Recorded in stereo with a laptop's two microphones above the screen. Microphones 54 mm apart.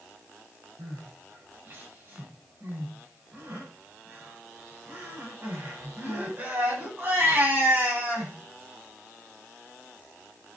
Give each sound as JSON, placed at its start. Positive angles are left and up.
{"t": 0.8, "sound": "crying", "side_deg": -35, "distance_m": 8.0}